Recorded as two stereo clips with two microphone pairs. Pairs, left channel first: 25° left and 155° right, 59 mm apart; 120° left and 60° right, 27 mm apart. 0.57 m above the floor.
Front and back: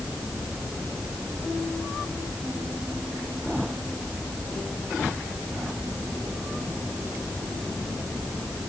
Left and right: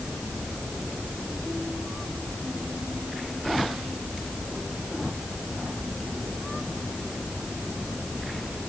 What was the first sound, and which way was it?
Only background noise.